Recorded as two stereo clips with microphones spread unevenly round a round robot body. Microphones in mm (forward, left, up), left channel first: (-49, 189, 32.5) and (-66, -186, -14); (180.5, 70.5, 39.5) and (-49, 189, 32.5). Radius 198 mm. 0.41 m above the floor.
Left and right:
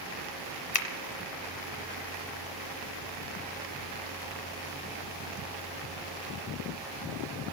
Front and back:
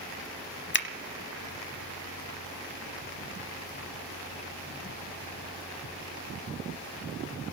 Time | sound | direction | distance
0.7 | a finger snap | 10° left | 0.9 m